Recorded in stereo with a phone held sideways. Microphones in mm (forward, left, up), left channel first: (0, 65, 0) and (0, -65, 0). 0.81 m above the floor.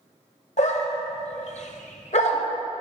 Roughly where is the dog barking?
Left.